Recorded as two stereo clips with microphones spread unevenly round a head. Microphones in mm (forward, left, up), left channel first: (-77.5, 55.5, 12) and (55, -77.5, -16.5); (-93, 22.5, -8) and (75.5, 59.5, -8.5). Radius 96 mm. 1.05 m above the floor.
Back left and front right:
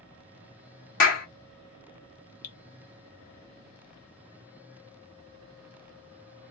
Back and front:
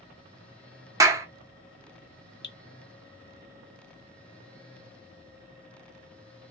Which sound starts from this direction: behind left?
Dripping, at 2.4 s.